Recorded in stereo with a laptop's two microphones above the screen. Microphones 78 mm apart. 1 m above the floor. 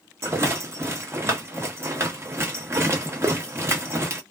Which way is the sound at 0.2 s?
35° right (ahead or behind).